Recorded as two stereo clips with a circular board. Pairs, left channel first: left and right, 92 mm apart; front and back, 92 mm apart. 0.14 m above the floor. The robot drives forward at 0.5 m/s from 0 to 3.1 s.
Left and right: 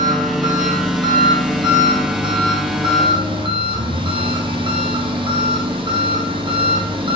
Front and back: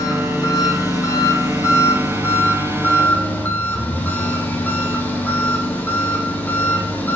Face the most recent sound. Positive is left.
turn(degrees=-70)